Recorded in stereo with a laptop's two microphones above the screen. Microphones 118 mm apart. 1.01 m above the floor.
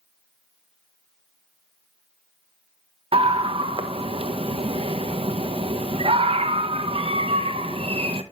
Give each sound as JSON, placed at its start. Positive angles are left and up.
{"t": 3.1, "sound": "a scream", "side_deg": -50, "distance_m": 1.1}